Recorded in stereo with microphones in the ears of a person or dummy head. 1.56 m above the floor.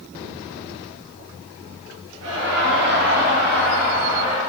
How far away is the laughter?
About 2.5 m.